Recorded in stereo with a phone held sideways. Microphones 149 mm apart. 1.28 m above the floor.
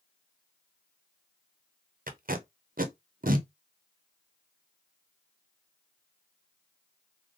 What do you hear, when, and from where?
2.1 s tape being pulled: 70° right (ahead or behind), 0.7 m